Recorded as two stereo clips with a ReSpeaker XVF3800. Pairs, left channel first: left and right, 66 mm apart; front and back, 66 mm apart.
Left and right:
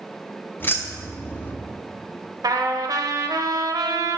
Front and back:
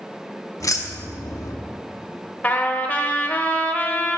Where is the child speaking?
I don't hear a child speaking.